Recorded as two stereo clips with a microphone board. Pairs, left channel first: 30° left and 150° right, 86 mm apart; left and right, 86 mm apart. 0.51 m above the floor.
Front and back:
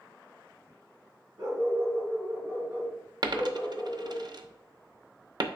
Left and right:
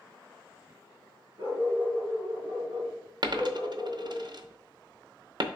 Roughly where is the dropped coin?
Behind right.